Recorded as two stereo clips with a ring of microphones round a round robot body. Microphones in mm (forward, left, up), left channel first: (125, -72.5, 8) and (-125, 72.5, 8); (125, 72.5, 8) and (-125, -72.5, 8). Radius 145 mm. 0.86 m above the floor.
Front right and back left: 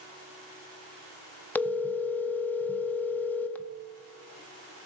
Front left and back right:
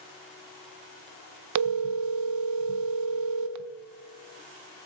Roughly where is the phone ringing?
Behind right.